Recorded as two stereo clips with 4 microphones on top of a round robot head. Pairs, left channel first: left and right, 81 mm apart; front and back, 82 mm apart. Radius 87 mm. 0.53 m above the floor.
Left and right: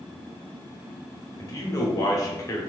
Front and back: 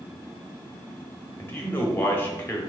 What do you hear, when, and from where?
1.4 s a man speaking: 55° left, 1.1 m